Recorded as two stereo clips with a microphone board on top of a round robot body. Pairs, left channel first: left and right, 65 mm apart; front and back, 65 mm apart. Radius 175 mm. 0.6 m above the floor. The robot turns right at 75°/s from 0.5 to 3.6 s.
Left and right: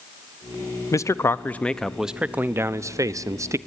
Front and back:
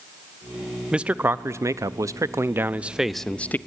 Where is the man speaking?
105° left, 0.8 m; by 3.6 s 55° right, 0.8 m.